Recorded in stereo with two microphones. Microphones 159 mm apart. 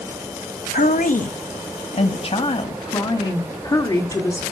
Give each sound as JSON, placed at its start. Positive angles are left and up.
{"t": 0.7, "sound": "a woman speaking", "side_deg": 60, "distance_m": 1.1}